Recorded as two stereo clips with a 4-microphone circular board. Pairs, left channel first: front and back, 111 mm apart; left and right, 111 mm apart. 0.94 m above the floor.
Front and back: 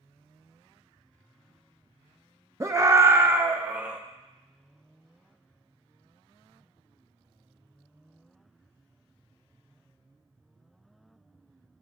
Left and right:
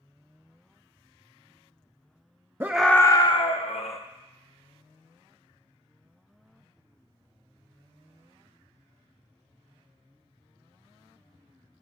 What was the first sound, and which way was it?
A scream, 145° right.